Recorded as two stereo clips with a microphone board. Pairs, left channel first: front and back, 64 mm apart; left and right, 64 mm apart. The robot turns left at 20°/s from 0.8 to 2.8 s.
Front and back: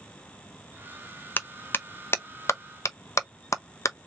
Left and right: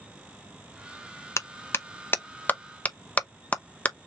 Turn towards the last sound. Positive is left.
turn(degrees=30)